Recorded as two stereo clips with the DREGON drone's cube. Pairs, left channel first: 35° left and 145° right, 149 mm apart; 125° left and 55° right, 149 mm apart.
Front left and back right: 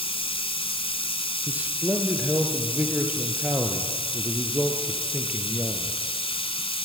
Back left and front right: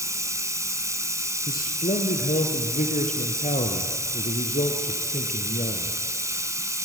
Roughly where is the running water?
Ahead.